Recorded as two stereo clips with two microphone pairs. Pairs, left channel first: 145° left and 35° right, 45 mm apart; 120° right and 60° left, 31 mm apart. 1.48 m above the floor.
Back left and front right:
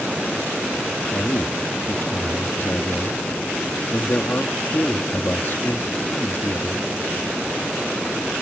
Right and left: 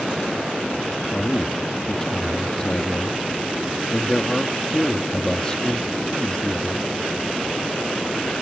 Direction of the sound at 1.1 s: 175° left.